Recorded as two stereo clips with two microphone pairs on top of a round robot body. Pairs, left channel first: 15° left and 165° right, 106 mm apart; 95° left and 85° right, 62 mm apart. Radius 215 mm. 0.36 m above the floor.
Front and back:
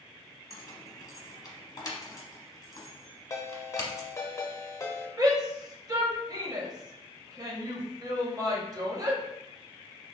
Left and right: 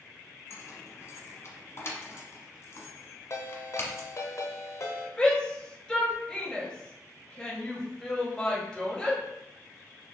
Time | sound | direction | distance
0.5 | keys jangling | 60° left | 1.1 m
3.3 | a ringtone | 70° left | 0.8 m
5.2 | a shout | 170° left | 1.2 m